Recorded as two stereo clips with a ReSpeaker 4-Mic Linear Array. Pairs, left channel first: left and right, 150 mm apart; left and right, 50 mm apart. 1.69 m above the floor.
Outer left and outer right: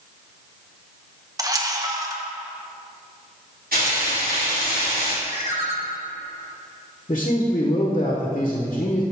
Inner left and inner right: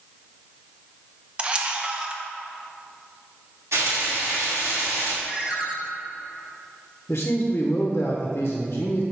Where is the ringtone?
20° right (ahead or behind), 1.4 m.